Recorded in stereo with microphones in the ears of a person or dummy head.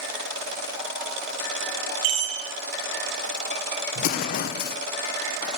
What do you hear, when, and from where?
2.0 s a chime: 75° right (ahead or behind), 1.7 m
4.0 s an explosion: 50° left (ahead or behind), 0.6 m